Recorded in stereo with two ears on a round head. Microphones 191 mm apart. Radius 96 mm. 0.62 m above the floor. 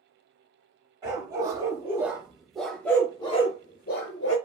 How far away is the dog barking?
About 1.7 m.